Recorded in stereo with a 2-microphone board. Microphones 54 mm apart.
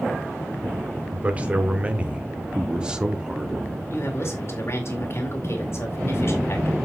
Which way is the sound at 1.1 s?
25° right (ahead or behind).